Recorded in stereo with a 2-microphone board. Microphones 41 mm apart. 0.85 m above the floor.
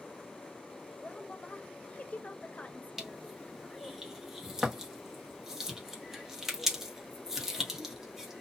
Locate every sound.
1.0 s a woman speaking: 35° left (ahead or behind), 0.8 m
3.0 s crushing: 10° right (ahead or behind), 1.1 m